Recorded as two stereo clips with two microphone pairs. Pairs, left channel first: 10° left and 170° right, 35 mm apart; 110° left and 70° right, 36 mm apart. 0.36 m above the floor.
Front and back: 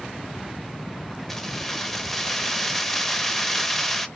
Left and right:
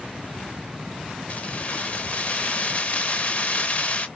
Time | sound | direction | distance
1.3 | keys jangling | 90° left | 0.6 m